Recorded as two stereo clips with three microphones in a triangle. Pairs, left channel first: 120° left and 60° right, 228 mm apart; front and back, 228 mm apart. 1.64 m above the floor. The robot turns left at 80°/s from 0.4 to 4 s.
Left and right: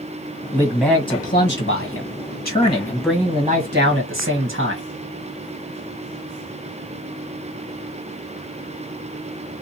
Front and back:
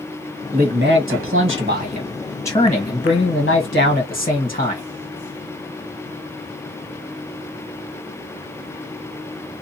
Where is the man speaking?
125° right, 1.5 m; by 4.8 s 45° right, 1.5 m.